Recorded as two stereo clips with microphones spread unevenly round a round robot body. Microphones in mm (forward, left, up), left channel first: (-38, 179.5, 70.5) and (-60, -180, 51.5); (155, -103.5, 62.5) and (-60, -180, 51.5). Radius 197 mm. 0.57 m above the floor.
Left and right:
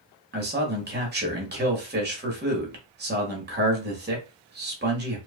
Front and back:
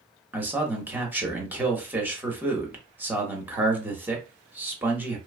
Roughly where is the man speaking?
Right.